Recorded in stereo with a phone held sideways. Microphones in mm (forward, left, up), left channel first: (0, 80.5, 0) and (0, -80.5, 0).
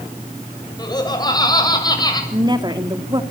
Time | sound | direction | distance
0.8 | laughter | 25° left (ahead or behind) | 7 m
2.3 | a woman speaking | 30° right (ahead or behind) | 2.5 m